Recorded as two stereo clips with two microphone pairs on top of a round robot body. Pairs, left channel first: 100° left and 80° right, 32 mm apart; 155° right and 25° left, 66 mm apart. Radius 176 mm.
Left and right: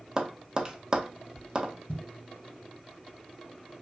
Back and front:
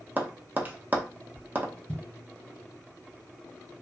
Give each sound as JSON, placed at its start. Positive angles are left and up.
{"t": 0.2, "sound": "tapping", "azimuth_deg": -25, "distance_m": 0.7}
{"t": 1.9, "sound": "a thud", "azimuth_deg": 135, "distance_m": 1.2}